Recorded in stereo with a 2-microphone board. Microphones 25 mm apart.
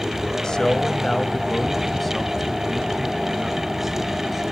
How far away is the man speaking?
About 1.4 m.